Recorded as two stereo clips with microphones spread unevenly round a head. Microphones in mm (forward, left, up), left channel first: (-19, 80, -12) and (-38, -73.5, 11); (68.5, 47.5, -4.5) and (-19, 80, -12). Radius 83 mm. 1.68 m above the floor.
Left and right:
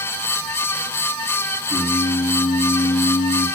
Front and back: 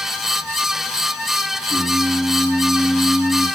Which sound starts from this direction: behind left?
Singing, at 1.7 s.